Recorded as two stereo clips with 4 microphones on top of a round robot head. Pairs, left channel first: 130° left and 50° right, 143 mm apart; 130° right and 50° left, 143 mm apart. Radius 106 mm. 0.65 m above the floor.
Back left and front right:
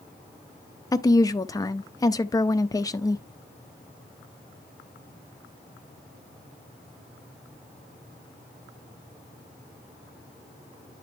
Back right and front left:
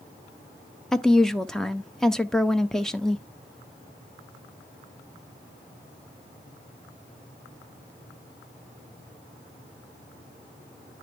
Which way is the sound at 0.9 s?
150° left.